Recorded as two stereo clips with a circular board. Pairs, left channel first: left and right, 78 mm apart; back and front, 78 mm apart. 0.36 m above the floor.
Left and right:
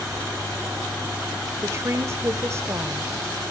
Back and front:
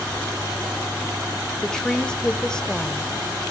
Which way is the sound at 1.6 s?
105° right.